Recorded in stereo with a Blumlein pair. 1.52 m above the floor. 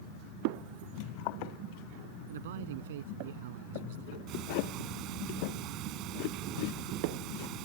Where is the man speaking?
55° right; by 4.2 s 50° right.